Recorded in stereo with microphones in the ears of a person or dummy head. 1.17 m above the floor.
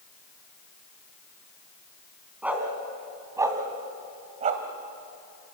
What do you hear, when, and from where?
2.4 s a dog barking: 5° right (ahead or behind), 3.5 m; by 4.6 s 40° right (ahead or behind), 2.0 m